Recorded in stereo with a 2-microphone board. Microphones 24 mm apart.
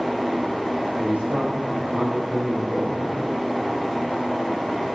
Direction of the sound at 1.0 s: 70° right (ahead or behind).